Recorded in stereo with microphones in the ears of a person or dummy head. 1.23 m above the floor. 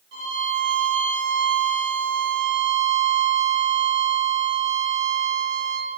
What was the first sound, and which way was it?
A violin, 65° right (ahead or behind).